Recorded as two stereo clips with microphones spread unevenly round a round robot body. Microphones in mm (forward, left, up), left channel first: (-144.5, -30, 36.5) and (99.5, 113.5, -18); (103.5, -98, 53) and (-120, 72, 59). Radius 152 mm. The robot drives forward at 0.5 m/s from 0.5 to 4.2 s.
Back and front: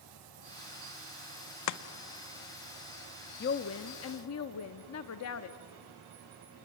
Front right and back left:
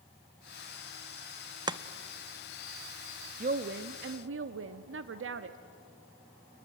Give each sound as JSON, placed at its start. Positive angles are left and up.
{"t": 1.7, "sound": "chopping", "azimuth_deg": -145, "distance_m": 0.7}
{"t": 3.4, "sound": "a woman speaking", "azimuth_deg": 175, "distance_m": 0.6}